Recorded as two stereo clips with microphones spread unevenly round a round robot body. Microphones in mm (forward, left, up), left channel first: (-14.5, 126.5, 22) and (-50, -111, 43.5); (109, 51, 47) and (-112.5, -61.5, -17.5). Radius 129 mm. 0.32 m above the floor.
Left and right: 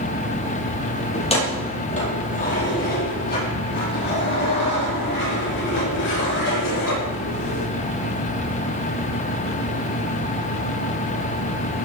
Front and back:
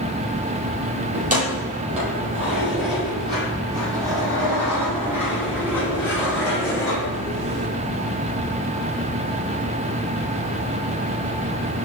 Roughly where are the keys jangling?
Behind left.